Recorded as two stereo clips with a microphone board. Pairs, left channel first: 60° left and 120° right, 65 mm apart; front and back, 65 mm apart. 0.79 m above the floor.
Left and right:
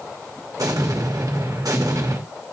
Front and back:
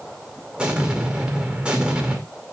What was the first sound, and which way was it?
An explosion, 110° right.